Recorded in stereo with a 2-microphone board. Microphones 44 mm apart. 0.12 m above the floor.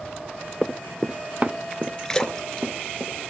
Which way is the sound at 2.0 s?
15° left (ahead or behind).